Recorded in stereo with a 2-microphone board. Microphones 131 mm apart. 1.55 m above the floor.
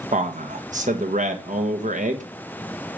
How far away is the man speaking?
About 1.3 m.